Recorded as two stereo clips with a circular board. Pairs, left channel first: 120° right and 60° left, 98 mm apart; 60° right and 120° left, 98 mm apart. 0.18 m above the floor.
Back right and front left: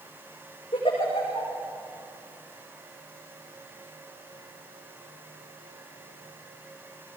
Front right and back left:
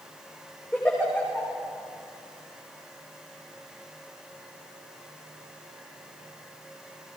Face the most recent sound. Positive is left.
turn(degrees=-140)